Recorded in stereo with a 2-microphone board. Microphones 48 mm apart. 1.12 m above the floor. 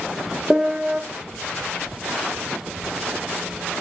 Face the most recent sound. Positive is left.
turn(degrees=-10)  # may be behind; listen again after turning